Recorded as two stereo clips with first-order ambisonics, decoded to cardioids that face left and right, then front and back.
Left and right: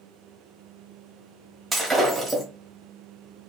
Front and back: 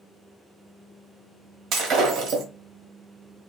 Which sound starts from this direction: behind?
Breaking glass, at 1.7 s.